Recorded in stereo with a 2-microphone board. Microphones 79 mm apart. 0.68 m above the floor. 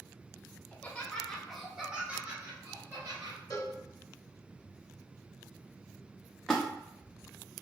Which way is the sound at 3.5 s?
45° left (ahead or behind).